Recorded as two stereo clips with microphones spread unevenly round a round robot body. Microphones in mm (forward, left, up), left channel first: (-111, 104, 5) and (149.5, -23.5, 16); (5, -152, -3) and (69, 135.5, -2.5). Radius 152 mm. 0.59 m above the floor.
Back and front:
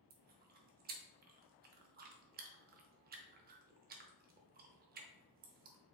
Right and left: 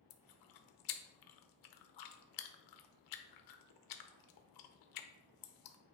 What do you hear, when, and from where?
0.1 s chewing: 90° right, 0.8 m